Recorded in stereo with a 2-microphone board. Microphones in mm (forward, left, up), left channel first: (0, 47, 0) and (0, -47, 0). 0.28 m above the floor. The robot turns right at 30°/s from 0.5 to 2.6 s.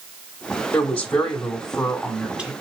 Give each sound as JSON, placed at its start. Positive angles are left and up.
{"t": 0.7, "sound": "a woman speaking", "side_deg": 15, "distance_m": 1.2}